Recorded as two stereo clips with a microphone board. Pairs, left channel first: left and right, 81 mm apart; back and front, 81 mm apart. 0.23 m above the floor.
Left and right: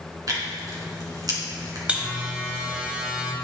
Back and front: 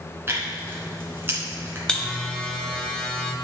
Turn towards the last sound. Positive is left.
turn(degrees=-125)